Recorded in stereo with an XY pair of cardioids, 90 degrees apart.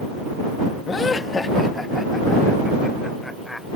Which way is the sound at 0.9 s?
50° left.